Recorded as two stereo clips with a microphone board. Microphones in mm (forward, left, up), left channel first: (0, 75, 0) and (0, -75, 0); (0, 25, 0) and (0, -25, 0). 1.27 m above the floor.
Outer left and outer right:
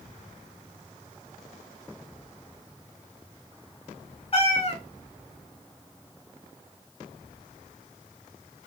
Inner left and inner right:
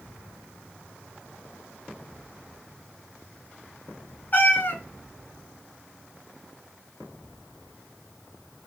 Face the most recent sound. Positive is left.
turn(degrees=40)  # may be behind; listen again after turning